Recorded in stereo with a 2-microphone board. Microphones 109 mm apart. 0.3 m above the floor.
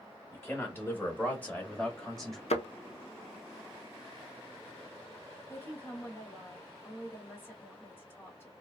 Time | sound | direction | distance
0.3 | a man speaking | 20° left (ahead or behind) | 1.4 m
2.5 | a thud | 75° left (ahead or behind) | 0.6 m
5.5 | a woman speaking | 20° left (ahead or behind) | 1.3 m